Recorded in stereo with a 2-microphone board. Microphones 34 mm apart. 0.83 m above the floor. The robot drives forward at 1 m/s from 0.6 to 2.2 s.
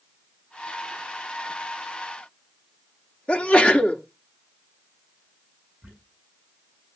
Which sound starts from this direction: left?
A sneeze, at 3.3 s.